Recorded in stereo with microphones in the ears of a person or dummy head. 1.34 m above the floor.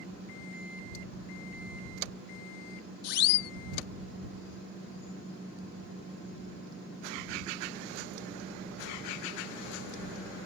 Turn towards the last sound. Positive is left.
turn(degrees=50)  # may be behind; listen again after turning